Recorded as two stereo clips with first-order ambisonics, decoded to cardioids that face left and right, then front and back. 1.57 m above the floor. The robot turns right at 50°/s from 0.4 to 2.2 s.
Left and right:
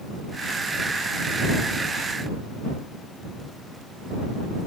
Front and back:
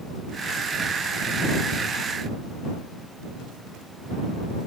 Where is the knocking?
I don't hear knocking.